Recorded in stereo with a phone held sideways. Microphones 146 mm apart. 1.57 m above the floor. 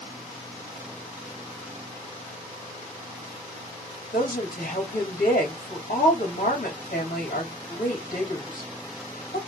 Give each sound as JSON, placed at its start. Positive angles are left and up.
{"t": 4.1, "sound": "a woman speaking", "side_deg": 65, "distance_m": 3.0}